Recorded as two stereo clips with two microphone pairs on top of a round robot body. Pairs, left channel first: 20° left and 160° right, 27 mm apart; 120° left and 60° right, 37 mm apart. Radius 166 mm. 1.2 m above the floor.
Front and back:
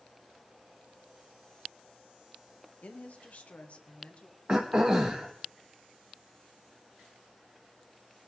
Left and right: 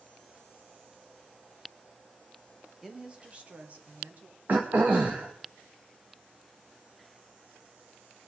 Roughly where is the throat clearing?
Right.